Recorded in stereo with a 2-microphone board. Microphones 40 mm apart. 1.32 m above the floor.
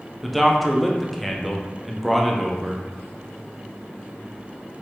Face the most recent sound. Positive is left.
turn(degrees=0)  # may be behind; listen again after turning